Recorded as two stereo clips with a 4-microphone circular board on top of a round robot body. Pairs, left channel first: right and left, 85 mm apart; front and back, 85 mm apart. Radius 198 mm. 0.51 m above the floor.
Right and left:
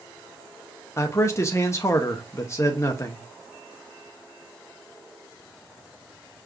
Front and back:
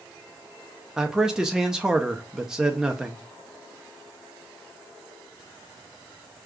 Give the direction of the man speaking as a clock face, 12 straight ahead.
3 o'clock.